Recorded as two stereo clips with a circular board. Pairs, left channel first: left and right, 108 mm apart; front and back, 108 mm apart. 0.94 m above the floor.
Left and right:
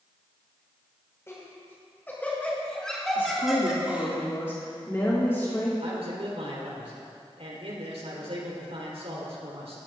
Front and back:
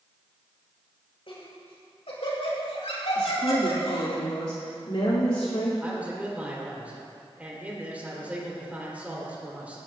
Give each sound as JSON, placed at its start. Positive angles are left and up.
{"t": 1.3, "sound": "laughter", "azimuth_deg": 25, "distance_m": 5.5}
{"t": 3.1, "sound": "a woman speaking", "azimuth_deg": 25, "distance_m": 2.5}
{"t": 5.8, "sound": "a man speaking", "azimuth_deg": -105, "distance_m": 3.5}